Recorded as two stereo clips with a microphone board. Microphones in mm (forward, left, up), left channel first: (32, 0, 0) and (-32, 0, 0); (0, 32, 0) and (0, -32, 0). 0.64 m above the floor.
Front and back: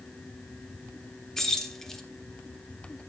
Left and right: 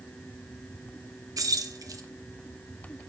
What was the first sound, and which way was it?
Keys jangling, 85° right.